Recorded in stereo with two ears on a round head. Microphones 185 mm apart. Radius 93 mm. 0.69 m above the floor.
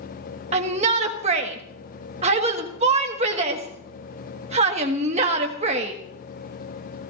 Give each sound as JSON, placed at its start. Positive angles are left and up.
{"t": 0.5, "sound": "a shout", "side_deg": -30, "distance_m": 1.3}